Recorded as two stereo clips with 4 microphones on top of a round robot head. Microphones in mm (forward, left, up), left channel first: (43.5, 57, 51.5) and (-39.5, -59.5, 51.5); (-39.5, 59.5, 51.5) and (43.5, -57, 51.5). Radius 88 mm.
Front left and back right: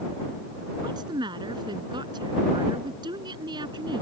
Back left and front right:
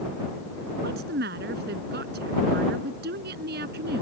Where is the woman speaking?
65° right.